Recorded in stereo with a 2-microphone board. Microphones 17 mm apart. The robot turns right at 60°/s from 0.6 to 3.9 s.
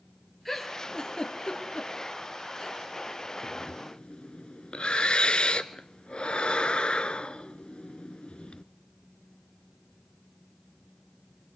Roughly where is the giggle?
Centre.